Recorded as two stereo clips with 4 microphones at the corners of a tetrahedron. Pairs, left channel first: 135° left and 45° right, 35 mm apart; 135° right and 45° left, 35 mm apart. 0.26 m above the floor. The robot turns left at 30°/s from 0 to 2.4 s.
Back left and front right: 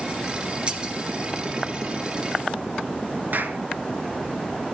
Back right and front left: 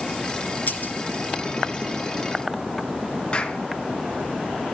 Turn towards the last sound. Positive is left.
turn(degrees=-75)